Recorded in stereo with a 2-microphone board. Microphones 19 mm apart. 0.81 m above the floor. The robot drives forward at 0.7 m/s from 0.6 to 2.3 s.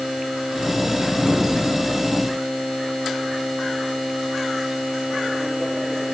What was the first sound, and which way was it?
Only background noise.